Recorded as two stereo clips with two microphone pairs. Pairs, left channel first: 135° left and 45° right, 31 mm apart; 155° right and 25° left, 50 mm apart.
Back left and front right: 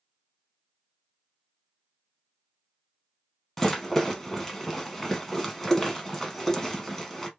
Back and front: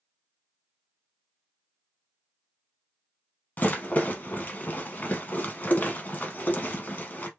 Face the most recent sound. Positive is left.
turn(degrees=-150)